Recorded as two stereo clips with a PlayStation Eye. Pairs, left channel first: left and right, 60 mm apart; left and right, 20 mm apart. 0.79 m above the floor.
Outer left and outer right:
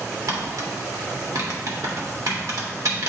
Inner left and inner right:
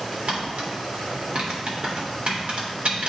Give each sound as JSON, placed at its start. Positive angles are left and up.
{"t": 0.3, "sound": "tapping", "side_deg": -75, "distance_m": 1.8}